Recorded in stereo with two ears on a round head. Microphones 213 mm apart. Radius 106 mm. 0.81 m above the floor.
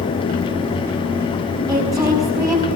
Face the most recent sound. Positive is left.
turn(degrees=-15)  # may be behind; listen again after turning